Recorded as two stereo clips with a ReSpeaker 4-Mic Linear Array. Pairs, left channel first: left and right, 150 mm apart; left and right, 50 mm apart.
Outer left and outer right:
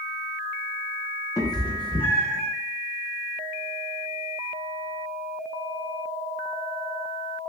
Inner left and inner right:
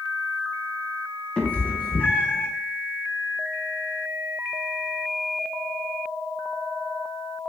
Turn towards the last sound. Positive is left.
turn(degrees=35)  # may be behind; listen again after turning